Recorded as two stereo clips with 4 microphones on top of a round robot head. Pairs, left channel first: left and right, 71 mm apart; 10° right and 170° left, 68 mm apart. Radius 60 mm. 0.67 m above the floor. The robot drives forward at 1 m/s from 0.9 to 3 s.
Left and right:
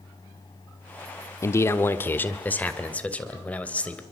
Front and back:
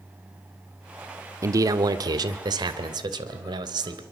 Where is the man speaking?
135° left, 1.3 m; by 4.0 s 160° left, 2.5 m.